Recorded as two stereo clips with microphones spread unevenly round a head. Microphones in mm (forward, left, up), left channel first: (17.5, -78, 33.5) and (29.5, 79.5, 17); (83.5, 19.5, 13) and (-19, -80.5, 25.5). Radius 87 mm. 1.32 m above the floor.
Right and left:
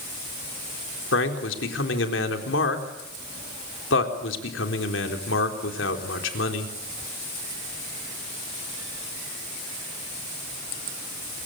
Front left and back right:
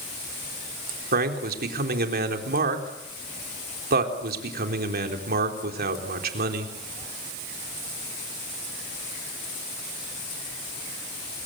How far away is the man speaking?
About 4 m.